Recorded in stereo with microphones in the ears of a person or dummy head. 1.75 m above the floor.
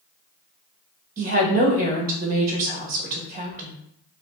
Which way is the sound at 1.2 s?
40° right (ahead or behind).